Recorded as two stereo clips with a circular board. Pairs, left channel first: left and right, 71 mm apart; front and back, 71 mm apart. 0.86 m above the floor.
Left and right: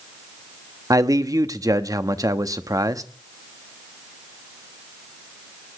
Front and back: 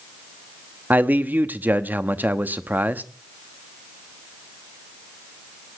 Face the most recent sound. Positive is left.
turn(degrees=-120)